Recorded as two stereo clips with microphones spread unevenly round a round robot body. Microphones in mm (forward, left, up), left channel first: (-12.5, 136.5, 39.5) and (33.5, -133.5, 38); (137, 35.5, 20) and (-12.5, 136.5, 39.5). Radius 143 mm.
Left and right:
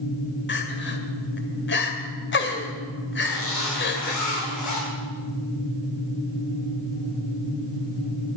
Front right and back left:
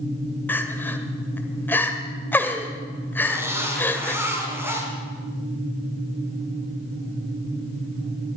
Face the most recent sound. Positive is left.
turn(degrees=70)